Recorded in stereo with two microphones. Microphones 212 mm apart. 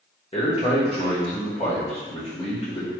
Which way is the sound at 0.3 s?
30° left (ahead or behind).